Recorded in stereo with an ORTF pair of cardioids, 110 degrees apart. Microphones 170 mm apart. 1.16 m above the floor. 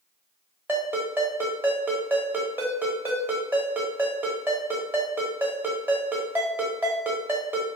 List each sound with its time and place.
0.7 s a ringtone: 10° right, 1.0 m